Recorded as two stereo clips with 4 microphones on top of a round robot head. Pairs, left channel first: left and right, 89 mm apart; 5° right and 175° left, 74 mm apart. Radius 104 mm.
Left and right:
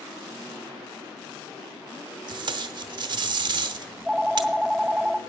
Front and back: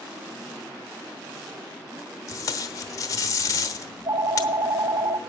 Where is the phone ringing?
170° right, 0.8 m.